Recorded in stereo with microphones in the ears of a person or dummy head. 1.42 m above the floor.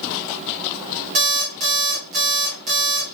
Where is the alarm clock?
40° right (ahead or behind), 1.6 m.